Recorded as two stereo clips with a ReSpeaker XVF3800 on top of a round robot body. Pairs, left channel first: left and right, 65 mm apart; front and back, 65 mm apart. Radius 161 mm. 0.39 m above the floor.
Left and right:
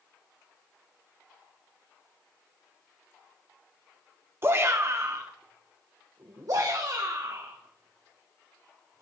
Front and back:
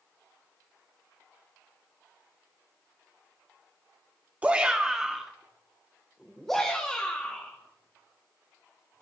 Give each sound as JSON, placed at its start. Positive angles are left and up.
{"t": 4.4, "sound": "a shout", "azimuth_deg": -115, "distance_m": 1.4}